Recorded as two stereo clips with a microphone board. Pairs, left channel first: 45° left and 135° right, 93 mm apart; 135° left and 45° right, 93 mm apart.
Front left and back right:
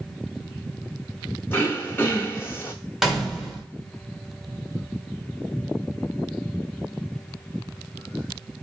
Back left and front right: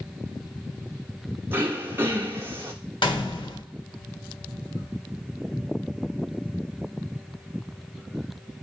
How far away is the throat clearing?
About 0.9 m.